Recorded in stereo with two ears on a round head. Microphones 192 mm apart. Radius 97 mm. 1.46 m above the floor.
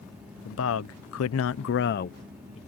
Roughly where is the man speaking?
Left.